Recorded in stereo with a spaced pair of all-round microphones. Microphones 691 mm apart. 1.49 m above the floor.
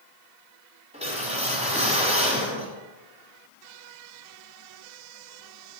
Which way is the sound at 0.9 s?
10° right (ahead or behind).